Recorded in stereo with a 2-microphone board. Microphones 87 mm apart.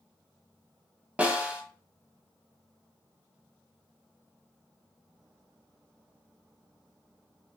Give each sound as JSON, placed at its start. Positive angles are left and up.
{"t": 1.2, "sound": "a snare drum", "side_deg": -15, "distance_m": 0.9}